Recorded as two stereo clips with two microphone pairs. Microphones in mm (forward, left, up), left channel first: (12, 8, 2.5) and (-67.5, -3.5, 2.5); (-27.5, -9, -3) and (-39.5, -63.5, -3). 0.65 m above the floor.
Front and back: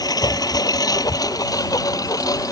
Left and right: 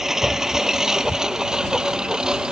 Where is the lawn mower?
20° right; by 2.5 s 30° right.